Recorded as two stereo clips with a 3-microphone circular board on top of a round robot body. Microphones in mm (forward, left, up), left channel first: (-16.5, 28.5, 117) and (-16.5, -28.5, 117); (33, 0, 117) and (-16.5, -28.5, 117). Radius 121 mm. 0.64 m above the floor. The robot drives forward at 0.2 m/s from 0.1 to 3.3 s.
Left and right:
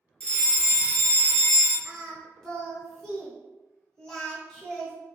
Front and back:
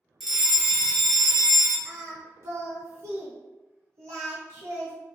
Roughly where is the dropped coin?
No dropped coin in this recording.